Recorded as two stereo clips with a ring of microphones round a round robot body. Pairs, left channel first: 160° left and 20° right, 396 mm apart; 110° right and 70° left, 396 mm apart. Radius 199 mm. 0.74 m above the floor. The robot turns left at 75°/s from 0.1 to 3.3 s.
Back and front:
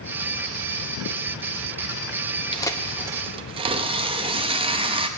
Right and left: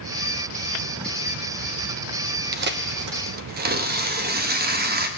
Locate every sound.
2.5 s tearing paper: 95° left, 0.8 m; by 5.1 s 35° left, 0.8 m